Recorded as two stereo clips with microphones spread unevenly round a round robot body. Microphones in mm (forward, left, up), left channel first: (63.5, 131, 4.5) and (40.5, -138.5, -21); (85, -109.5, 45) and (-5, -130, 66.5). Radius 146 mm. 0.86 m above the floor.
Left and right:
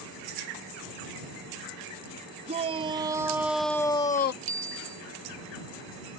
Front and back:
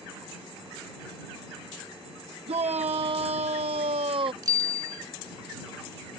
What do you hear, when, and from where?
2.5 s a shout: 160° right; by 4.3 s 145° left
4.4 s a bicycle bell: 115° right